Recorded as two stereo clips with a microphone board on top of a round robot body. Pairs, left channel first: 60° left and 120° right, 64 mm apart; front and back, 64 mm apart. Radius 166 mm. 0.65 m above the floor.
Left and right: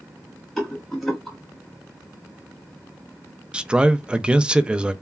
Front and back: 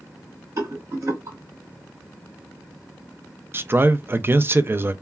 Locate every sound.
0.6 s a rattle: 145° left, 1.7 m
3.5 s a man speaking: 175° left, 0.5 m